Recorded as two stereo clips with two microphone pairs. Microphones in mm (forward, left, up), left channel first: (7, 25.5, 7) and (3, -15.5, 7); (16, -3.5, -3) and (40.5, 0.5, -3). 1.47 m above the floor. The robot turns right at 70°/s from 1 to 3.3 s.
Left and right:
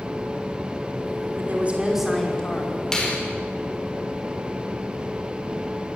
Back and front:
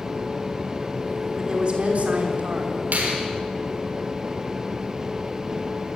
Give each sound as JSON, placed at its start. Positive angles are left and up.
{"t": 1.4, "sound": "a woman speaking", "azimuth_deg": -55, "distance_m": 5.0}
{"t": 2.9, "sound": "a finger snap", "azimuth_deg": 10, "distance_m": 4.5}